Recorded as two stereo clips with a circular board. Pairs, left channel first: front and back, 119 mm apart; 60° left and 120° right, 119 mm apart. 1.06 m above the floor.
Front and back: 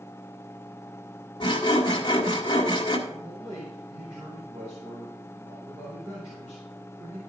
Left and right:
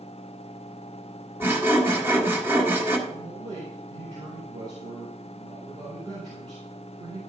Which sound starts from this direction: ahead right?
Sawing, at 1.4 s.